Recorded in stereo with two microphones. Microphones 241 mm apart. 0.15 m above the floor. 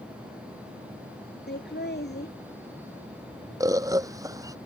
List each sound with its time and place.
1.5 s laughter: 45° left (ahead or behind)
3.6 s a bird: 15° right (ahead or behind)